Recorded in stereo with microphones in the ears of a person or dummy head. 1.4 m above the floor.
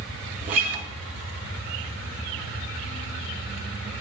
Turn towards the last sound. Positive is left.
turn(degrees=-45)  # may be behind; listen again after turning